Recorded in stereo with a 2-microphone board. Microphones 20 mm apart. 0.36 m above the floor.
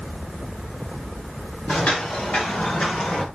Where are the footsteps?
65° left (ahead or behind), 8 m; by 3.3 s 50° left (ahead or behind), 6.5 m.